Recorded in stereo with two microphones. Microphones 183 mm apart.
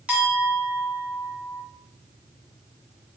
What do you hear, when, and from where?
0.1 s a clink: 10° right (ahead or behind), 2.0 m